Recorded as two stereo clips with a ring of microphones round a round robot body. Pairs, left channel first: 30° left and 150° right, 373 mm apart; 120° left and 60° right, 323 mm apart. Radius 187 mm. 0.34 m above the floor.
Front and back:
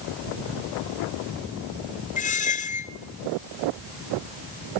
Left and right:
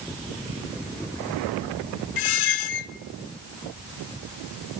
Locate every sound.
2.2 s a squeak: 100° left, 0.8 m